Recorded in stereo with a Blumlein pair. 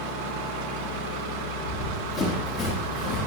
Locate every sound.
1.6 s running footsteps: 10° left, 7 m; by 3.3 s 25° left, 5 m